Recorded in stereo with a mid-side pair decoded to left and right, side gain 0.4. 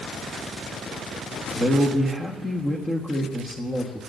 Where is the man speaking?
20° left, 1.5 m.